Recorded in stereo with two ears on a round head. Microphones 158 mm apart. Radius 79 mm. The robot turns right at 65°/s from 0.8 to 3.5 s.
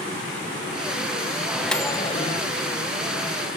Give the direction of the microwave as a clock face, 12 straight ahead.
12 o'clock.